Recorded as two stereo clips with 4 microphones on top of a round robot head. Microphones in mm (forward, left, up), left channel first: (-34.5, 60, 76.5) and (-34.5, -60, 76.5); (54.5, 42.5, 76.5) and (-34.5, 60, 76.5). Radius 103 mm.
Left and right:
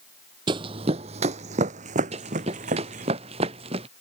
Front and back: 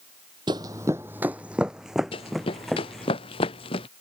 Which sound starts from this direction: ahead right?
Running footsteps, at 2.1 s.